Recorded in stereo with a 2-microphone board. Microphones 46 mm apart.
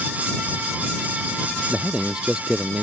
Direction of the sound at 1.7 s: 20° right (ahead or behind).